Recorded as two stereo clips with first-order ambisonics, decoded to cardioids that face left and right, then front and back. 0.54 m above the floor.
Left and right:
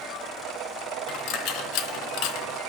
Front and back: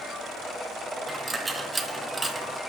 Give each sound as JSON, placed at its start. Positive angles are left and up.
{"t": 1.1, "sound": "a dropped coin", "azimuth_deg": 95, "distance_m": 0.9}